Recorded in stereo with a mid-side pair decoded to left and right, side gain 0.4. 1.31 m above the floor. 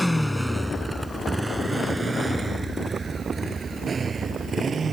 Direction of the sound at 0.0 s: Straight ahead.